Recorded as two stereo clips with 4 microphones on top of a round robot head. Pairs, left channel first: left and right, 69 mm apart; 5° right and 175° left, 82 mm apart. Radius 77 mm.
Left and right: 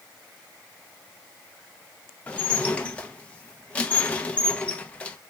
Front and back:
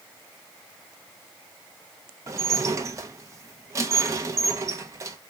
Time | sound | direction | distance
2.3 | dishes clattering | 150° left | 0.5 m